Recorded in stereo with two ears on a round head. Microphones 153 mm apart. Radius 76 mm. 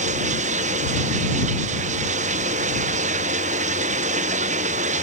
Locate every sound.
0.0 s running water: 45° right (ahead or behind)